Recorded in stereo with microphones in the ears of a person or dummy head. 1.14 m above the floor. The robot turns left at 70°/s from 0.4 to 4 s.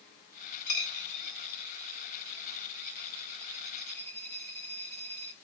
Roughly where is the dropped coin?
Left.